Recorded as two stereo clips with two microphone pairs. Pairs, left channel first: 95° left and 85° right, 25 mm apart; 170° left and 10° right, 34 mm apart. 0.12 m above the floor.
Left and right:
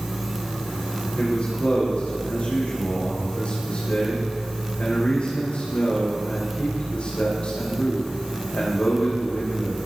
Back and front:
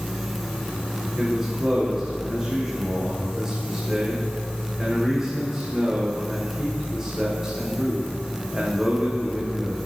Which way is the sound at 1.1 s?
60° left.